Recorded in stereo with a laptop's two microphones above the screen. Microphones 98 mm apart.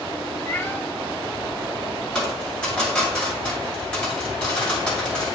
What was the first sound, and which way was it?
A cat meowing, 20° left (ahead or behind).